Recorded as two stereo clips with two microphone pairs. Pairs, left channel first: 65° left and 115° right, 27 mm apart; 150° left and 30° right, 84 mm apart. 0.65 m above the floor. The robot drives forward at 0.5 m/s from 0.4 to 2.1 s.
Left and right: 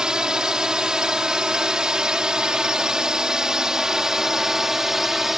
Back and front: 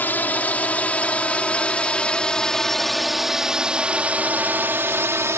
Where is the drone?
155° right; by 5.4 s 50° right.